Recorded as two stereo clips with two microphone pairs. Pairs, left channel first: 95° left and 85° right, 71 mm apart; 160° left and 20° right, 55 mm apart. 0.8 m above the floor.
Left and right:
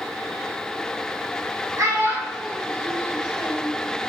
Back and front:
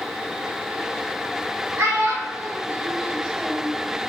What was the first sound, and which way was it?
A child speaking, 50° right.